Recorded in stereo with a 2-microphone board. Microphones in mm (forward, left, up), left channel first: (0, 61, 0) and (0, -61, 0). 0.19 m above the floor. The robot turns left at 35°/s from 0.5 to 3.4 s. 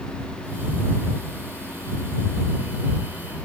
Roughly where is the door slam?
No door slam in this recording.